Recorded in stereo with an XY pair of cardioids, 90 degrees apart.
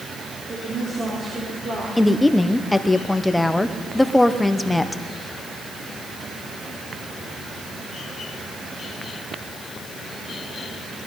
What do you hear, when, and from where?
0.5 s a woman speaking: 50° right, 3.5 m; by 1.9 s 35° right, 4.5 m
2.0 s a woman speaking: 15° left, 0.9 m